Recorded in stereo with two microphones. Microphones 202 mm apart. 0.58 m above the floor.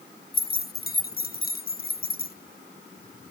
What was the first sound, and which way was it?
Keys jangling, 50° left (ahead or behind).